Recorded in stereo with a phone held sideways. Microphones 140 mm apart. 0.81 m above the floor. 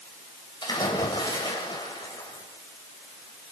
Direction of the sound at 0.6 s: 35° left (ahead or behind).